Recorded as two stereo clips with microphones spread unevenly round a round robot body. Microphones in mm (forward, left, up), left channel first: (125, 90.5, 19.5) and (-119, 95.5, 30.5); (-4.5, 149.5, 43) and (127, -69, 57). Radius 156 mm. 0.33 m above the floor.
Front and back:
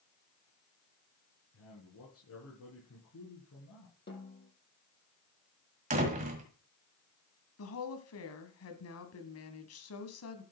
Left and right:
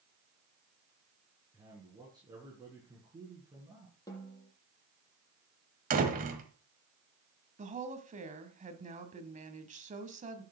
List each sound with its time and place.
1.5 s a man speaking: 15° left, 4.5 m
4.1 s a snare drum: 45° left, 7.5 m
5.9 s a door slam: 120° right, 1.6 m
7.6 s a woman speaking: straight ahead, 2.5 m